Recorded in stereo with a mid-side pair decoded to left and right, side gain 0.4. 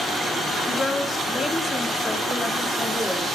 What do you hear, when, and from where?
0.7 s a woman speaking: 40° left, 3.5 m; by 3.3 s 10° left, 3.5 m